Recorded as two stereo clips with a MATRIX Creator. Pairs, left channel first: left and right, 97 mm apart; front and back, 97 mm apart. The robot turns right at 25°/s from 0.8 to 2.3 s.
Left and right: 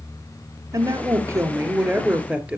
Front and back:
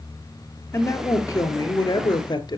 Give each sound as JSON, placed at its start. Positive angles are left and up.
{"t": 0.7, "sound": "a woman speaking", "azimuth_deg": -55, "distance_m": 2.5}